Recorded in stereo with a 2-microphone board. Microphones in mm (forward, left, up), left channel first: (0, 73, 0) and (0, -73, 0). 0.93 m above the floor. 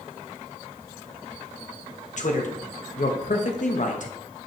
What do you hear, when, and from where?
2.2 s a man speaking: 55° left (ahead or behind), 1.1 m